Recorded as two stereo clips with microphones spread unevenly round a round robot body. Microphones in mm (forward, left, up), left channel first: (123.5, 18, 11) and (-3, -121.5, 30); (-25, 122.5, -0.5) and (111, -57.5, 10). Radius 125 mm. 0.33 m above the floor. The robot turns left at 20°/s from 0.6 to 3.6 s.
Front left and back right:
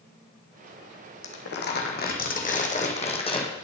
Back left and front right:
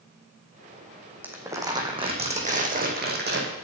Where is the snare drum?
No snare drum in this recording.